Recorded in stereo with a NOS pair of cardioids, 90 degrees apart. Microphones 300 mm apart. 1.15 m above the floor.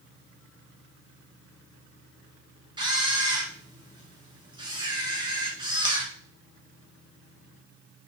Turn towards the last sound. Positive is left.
turn(degrees=-15)